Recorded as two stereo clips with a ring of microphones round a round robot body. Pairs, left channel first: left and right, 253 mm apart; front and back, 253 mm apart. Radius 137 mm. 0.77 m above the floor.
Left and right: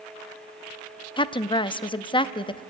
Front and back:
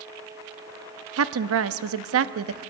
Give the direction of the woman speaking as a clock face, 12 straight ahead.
7 o'clock.